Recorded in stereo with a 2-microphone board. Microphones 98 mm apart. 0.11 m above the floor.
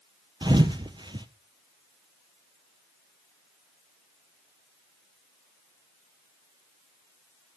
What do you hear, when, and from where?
0.4 s a thud: 50° right (ahead or behind), 0.9 m